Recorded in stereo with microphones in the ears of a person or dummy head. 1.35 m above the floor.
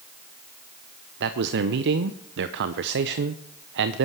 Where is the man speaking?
60° right (ahead or behind), 0.7 m.